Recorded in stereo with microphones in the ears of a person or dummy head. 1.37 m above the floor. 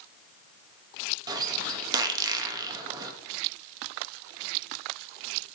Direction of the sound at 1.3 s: 20° right (ahead or behind).